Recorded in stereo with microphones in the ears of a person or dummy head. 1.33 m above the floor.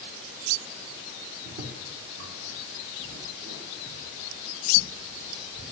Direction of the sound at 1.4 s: 60° right (ahead or behind).